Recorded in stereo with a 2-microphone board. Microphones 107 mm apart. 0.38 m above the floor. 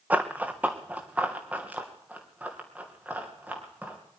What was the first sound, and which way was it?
Running footsteps, 15° right (ahead or behind).